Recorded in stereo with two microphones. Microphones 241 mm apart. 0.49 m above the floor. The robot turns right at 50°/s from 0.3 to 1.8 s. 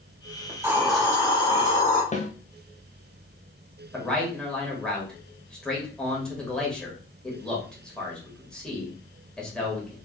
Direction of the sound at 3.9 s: 5° left (ahead or behind).